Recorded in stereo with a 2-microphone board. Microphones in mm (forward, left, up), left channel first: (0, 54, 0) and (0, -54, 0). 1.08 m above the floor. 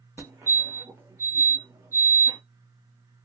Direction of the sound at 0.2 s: 20° right (ahead or behind).